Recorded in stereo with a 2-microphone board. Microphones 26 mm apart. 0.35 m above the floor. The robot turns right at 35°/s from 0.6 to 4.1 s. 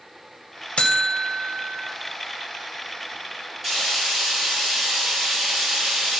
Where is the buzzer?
60° left, 0.6 m; by 1.9 s 100° left, 0.6 m.